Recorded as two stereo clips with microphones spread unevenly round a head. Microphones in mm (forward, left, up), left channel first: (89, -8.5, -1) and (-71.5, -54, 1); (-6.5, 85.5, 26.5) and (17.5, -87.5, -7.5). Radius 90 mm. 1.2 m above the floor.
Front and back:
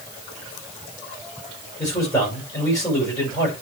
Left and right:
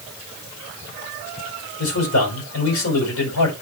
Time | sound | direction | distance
1.8 | a man speaking | 90° left | 6.5 m